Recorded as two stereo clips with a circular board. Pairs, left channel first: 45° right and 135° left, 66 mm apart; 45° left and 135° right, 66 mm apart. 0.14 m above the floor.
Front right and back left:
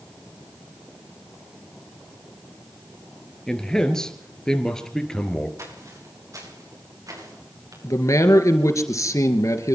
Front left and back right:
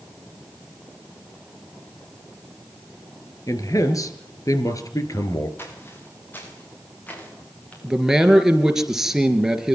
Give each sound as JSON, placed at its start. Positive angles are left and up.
{"t": 3.5, "sound": "a man speaking", "azimuth_deg": 35, "distance_m": 3.0}
{"t": 5.6, "sound": "footsteps", "azimuth_deg": 100, "distance_m": 9.0}
{"t": 7.8, "sound": "a man speaking", "azimuth_deg": -55, "distance_m": 3.0}